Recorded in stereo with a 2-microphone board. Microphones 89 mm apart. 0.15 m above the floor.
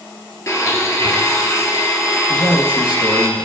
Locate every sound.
0.5 s a blender: 35° left (ahead or behind), 1.5 m
2.3 s a man speaking: 55° left (ahead or behind), 2.5 m